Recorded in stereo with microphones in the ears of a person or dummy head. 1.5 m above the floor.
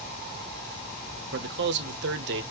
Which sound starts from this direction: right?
A man speaking, at 1.3 s.